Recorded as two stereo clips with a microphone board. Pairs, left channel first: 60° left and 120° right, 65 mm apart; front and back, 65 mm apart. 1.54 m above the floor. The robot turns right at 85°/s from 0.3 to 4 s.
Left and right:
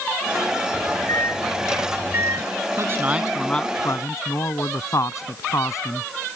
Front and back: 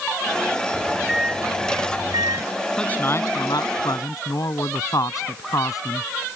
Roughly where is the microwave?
Ahead left.